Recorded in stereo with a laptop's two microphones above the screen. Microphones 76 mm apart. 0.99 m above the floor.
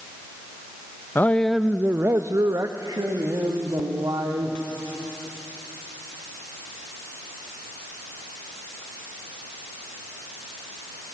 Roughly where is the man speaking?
Left.